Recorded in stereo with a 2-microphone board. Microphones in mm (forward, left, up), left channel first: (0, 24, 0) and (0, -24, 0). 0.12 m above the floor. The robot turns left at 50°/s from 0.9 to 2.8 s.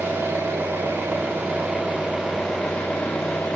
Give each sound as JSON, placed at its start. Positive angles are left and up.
{"t": 0.0, "sound": "an engine running", "azimuth_deg": -100, "distance_m": 10.0}